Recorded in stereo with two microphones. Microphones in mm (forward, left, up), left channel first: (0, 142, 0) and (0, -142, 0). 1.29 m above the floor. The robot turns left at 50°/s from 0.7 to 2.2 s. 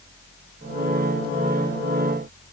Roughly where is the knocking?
No knocking in this recording.